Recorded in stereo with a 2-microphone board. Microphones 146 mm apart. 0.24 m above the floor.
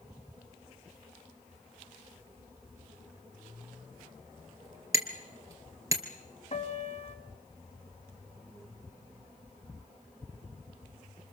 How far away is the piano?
About 2 m.